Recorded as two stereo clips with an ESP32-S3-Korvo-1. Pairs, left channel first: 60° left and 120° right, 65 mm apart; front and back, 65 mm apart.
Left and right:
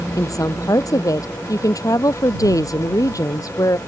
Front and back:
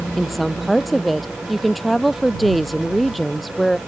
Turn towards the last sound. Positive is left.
turn(degrees=90)